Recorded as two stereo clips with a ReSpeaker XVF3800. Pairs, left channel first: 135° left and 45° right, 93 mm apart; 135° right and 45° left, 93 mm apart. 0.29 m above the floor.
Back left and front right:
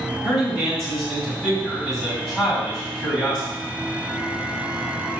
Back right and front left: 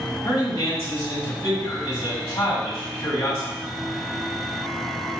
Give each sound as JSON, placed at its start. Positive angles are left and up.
{"t": 0.2, "sound": "a man speaking", "azimuth_deg": -125, "distance_m": 1.8}